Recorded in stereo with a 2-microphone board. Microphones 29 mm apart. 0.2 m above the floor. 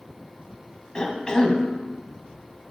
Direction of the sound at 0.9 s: 25° left (ahead or behind).